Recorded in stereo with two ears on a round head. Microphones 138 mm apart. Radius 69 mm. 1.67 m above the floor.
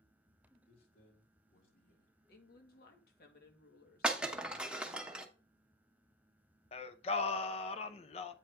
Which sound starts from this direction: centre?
Breaking glass, at 4.0 s.